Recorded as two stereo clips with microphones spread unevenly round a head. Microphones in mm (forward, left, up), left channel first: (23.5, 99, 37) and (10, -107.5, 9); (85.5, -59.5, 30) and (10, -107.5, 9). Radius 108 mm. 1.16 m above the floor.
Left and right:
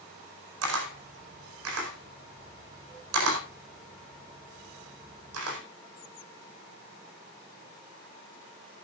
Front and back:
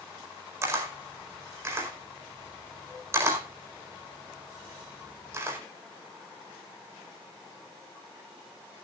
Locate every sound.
0.6 s a camera shutter: 85° right, 4.5 m